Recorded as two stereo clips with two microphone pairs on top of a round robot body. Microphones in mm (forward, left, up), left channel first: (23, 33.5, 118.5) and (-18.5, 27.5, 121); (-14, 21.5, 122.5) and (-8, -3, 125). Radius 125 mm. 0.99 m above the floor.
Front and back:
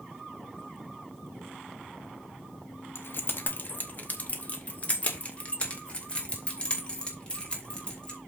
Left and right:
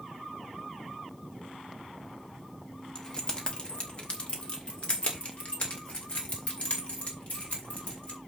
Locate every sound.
3.0 s keys jangling: 40° left, 0.9 m; by 8.2 s 75° left, 3.5 m